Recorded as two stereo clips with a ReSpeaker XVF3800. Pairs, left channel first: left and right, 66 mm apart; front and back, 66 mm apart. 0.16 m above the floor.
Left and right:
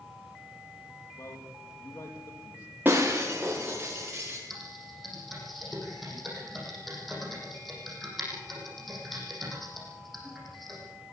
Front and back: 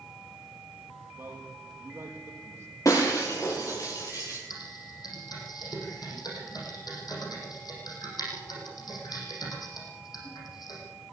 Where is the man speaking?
125° left, 6 m.